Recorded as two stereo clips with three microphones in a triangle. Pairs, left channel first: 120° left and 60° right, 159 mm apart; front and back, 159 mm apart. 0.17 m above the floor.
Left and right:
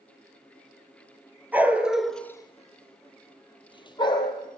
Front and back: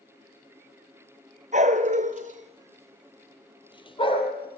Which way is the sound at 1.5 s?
140° right.